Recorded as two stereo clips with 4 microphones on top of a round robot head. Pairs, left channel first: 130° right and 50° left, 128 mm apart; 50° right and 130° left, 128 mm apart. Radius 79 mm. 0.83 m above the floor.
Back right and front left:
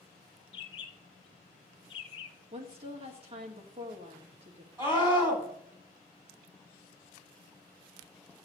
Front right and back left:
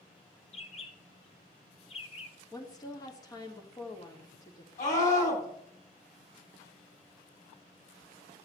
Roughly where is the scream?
Ahead.